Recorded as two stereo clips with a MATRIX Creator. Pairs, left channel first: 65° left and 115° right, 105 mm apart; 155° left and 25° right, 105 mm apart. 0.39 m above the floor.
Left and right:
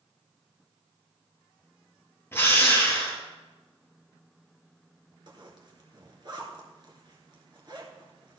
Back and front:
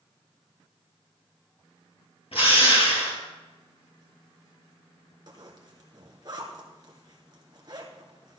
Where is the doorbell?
No doorbell in this recording.